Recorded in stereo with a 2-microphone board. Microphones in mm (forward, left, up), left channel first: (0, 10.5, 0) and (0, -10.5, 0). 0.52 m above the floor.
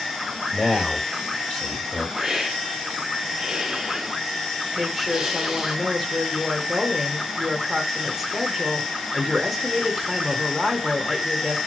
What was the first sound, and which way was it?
A man speaking, 35° left (ahead or behind).